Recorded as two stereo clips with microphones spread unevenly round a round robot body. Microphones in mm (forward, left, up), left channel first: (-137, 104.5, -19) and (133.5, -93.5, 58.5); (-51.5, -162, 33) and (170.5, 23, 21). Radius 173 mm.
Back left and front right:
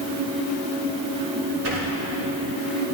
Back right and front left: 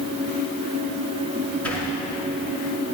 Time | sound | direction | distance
1.6 | a sliding door | 55° right | 5.5 m